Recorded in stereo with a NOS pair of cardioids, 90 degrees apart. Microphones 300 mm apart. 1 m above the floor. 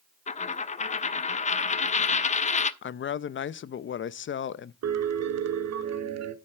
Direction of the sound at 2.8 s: 40° left.